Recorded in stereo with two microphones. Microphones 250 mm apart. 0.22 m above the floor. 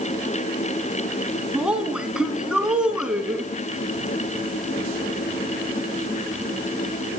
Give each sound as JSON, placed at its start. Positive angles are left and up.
{"t": 1.5, "sound": "a woman speaking", "side_deg": -5, "distance_m": 2.5}